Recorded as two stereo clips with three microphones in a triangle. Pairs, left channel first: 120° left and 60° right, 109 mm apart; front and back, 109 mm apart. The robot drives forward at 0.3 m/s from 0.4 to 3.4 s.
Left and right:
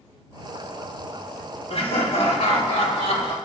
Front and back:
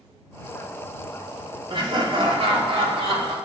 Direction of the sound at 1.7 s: 140° left.